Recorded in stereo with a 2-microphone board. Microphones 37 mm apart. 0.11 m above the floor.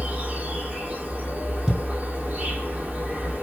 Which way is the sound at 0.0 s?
45° right (ahead or behind).